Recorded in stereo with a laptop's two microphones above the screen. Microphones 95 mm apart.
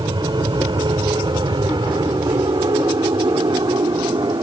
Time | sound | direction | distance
0.0 | an aircraft | 50° right (ahead or behind) | ?